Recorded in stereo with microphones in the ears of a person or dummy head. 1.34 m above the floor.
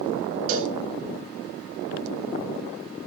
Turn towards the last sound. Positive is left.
turn(degrees=-45)  # may be behind; listen again after turning